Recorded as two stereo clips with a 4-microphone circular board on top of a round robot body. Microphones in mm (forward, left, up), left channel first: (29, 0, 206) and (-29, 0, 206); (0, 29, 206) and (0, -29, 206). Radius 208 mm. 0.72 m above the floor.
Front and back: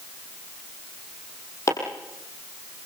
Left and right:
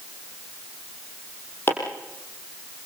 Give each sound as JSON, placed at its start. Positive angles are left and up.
{"t": 1.7, "sound": "chopping", "azimuth_deg": 35, "distance_m": 6.0}